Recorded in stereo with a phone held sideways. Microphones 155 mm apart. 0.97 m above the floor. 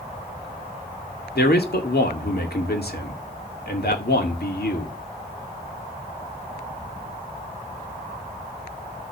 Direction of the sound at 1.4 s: 80° left.